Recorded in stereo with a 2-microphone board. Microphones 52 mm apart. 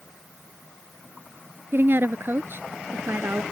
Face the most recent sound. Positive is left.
turn(degrees=-45)  # may be behind; listen again after turning